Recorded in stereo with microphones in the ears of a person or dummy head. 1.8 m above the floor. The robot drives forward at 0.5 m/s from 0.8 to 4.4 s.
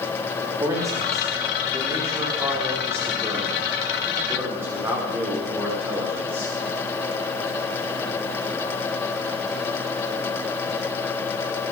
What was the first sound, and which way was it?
A man speaking, 20° right (ahead or behind).